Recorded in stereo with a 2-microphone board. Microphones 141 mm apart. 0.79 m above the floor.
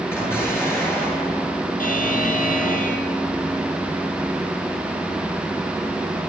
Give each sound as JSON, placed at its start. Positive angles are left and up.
{"t": 0.1, "sound": "an explosion", "side_deg": 15, "distance_m": 9.5}
{"t": 1.8, "sound": "a buzzer", "side_deg": 85, "distance_m": 3.5}